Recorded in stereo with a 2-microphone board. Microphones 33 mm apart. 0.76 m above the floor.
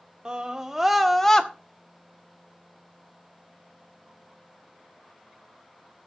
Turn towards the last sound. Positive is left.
turn(degrees=25)  # may be behind; listen again after turning